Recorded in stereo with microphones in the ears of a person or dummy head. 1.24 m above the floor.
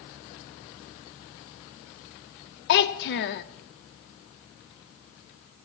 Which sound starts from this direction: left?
A child speaking, at 2.7 s.